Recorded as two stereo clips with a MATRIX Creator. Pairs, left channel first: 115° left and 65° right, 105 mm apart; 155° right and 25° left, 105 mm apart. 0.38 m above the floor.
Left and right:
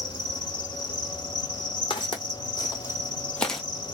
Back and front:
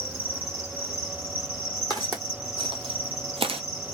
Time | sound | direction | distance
0.0 | an insect | 90° left | 2.5 m
1.9 | footsteps | 75° left | 1.3 m